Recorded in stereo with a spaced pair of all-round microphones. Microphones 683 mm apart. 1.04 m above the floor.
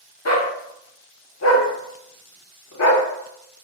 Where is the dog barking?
25° left (ahead or behind), 0.6 m.